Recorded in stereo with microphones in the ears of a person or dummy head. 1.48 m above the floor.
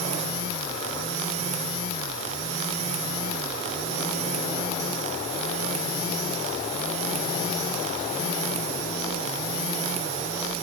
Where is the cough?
I don't hear a cough.